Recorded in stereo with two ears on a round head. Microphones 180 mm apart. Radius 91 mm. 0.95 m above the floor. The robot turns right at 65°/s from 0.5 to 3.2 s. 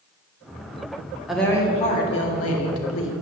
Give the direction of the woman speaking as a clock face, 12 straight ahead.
12 o'clock.